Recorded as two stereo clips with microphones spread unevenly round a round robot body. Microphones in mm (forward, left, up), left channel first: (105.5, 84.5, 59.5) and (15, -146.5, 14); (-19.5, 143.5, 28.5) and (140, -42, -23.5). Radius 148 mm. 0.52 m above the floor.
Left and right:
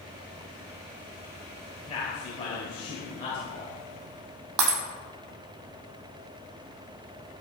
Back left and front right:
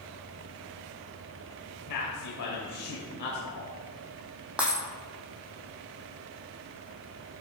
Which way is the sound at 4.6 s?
140° right.